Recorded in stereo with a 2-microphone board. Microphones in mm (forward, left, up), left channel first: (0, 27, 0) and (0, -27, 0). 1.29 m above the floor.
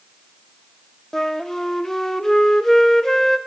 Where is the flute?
5° left (ahead or behind), 0.8 m.